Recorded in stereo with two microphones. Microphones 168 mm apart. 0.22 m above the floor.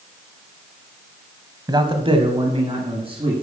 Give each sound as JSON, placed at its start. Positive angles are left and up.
{"t": 1.7, "sound": "a man speaking", "side_deg": -25, "distance_m": 1.2}